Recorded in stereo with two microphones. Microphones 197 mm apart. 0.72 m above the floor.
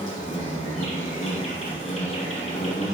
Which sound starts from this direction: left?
An insect, at 0.0 s.